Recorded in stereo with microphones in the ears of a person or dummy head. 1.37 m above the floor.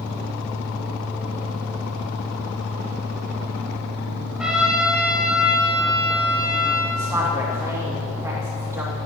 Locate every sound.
0.0 s a fan: 10° right (ahead or behind), 1.9 m
4.4 s a trumpet: 10° right (ahead or behind), 1.8 m
7.0 s a woman speaking: 10° right (ahead or behind), 2.5 m